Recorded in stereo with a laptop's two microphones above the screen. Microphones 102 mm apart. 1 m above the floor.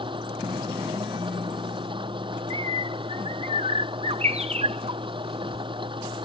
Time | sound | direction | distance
0.0 | an engine running | 55° right (ahead or behind) | ?
2.5 | a bird | 75° right (ahead or behind) | ?